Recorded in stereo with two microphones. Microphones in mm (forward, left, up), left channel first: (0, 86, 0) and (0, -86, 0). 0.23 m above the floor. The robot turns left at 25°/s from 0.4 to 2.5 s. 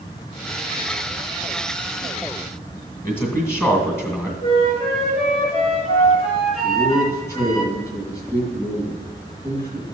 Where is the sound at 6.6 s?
20° left (ahead or behind), 2.5 m.